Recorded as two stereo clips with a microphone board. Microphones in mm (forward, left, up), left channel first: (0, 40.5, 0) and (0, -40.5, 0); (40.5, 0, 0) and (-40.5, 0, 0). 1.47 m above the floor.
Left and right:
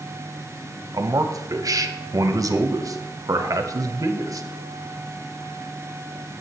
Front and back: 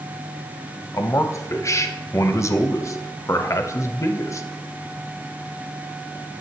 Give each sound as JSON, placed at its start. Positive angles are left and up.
{"t": 0.9, "sound": "a man speaking", "azimuth_deg": -50, "distance_m": 0.7}